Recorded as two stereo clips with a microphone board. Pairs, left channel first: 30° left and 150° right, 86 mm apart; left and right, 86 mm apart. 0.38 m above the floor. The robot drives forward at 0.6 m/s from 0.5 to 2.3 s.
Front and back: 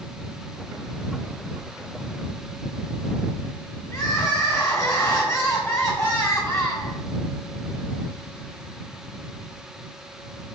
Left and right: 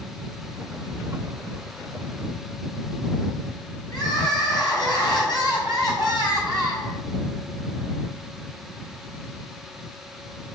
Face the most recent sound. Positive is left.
turn(degrees=85)